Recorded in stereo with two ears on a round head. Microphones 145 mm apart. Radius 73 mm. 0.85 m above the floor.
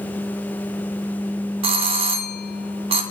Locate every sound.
1.6 s a doorbell: 40° right (ahead or behind), 1.2 m